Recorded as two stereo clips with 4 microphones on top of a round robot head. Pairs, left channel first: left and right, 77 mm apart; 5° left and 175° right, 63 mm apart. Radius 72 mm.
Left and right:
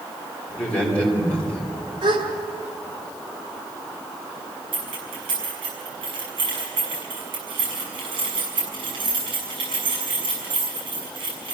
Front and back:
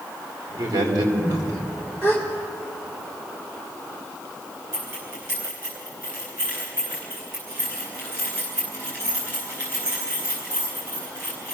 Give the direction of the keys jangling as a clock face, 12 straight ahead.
4 o'clock.